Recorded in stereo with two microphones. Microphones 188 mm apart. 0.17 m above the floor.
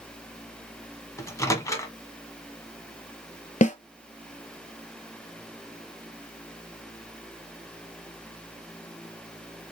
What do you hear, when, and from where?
1.2 s a microwave: 15° left (ahead or behind), 0.9 m
3.6 s a snare drum: 40° left (ahead or behind), 0.5 m